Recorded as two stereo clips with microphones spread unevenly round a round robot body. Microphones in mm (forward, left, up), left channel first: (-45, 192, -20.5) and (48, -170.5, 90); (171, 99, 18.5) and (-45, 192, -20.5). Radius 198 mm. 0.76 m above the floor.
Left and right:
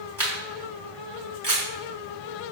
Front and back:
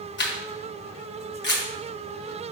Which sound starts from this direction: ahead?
A camera shutter, at 0.2 s.